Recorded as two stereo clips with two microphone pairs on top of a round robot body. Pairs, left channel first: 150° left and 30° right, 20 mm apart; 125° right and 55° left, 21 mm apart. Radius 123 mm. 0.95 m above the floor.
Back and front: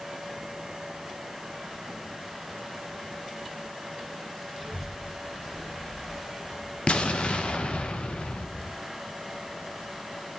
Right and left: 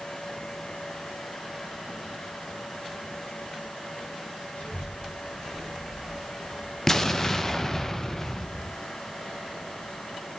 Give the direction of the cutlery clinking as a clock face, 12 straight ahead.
I don't hear cutlery clinking.